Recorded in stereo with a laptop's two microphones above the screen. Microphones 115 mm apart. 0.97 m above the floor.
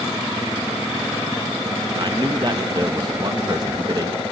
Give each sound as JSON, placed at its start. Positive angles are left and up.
{"t": 2.0, "sound": "a man speaking", "side_deg": -40, "distance_m": 1.4}